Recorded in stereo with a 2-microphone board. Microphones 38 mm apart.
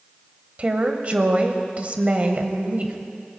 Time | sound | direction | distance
0.6 | a woman speaking | 40° right (ahead or behind) | 1.1 m